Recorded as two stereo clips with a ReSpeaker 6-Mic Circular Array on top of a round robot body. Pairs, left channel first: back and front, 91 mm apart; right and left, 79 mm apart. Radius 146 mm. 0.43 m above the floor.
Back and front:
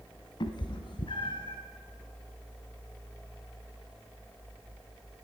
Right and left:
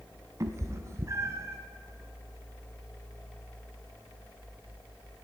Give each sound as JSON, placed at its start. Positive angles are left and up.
{"t": 0.4, "sound": "a cat meowing", "azimuth_deg": 140, "distance_m": 0.6}